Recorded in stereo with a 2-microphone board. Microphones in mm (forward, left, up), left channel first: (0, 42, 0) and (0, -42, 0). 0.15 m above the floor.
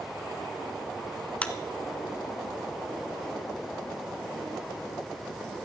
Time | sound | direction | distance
1.4 | a clap | 15° left (ahead or behind) | 1.2 m